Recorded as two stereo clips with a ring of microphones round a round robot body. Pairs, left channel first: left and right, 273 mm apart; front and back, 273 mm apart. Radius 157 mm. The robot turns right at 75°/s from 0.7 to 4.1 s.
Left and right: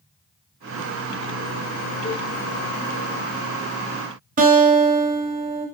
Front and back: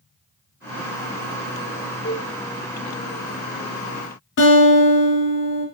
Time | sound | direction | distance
2.0 | a cowbell | 20° left | 1.4 m
4.4 | a guitar | 35° right | 0.8 m